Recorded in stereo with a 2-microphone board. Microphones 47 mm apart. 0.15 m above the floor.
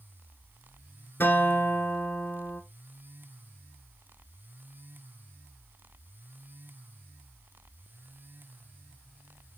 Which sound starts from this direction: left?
A guitar, at 1.2 s.